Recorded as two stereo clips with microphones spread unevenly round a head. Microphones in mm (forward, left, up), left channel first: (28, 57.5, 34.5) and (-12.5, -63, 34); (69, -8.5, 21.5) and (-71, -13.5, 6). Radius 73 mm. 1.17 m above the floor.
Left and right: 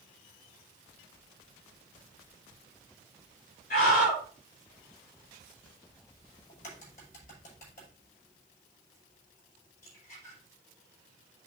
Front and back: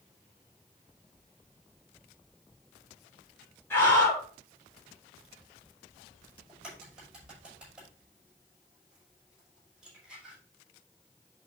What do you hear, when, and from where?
3.7 s a scream: 80° left, 5 m
6.5 s a crack: 100° left, 6 m